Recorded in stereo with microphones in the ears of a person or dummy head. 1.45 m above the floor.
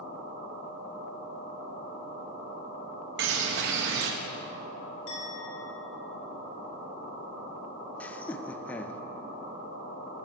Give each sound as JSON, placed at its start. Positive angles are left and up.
{"t": 3.2, "sound": "a bird", "side_deg": -55, "distance_m": 1.0}
{"t": 5.1, "sound": "a clink", "side_deg": 75, "distance_m": 2.5}
{"t": 8.0, "sound": "laughter", "side_deg": 10, "distance_m": 0.6}